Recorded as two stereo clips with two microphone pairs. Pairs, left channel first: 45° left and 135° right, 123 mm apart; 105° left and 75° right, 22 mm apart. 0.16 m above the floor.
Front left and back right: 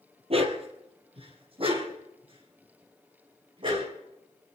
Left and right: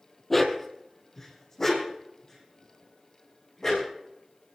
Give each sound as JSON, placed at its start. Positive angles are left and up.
{"t": 0.3, "sound": "a dog barking", "azimuth_deg": -170, "distance_m": 1.9}